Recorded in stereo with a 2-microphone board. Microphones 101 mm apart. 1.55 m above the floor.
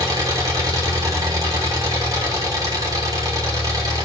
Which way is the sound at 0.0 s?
35° right (ahead or behind).